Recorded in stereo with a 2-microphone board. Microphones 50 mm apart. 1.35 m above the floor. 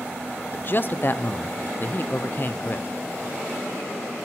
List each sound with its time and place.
0.5 s a man speaking: 45° left (ahead or behind), 0.6 m